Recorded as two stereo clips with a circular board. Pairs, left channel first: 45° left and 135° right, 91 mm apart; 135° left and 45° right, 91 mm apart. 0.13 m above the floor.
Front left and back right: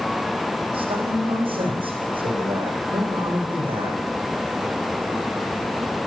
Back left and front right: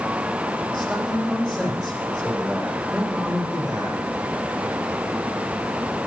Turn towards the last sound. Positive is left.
turn(degrees=-140)